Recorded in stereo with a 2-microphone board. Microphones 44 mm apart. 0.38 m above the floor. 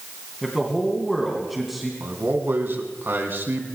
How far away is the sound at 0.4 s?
About 3 m.